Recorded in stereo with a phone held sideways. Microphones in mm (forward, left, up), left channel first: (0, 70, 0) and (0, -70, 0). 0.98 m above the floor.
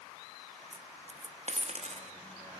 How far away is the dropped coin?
About 0.6 m.